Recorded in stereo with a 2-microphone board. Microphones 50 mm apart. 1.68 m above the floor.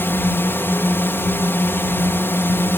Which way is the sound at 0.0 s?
50° left (ahead or behind).